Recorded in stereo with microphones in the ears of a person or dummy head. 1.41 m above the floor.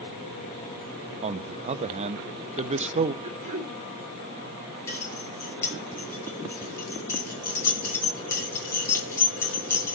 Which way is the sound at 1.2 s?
40° right (ahead or behind).